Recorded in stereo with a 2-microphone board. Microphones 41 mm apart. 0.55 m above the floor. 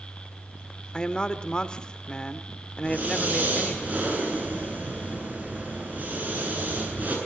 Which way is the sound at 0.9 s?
25° left (ahead or behind).